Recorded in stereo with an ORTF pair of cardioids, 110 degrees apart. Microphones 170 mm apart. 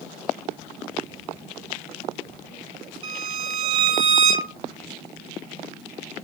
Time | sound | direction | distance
3.0 | a violin | 35° right | 1.0 m